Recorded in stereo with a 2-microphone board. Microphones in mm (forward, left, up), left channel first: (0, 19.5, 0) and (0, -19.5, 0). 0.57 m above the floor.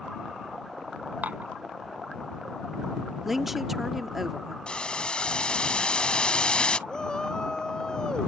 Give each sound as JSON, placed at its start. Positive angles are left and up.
{"t": 1.2, "sound": "dishes clattering", "side_deg": -45}
{"t": 3.2, "sound": "a woman speaking", "side_deg": -5}
{"t": 4.7, "sound": "boiling", "side_deg": 25}
{"t": 6.9, "sound": "a shout", "side_deg": 20}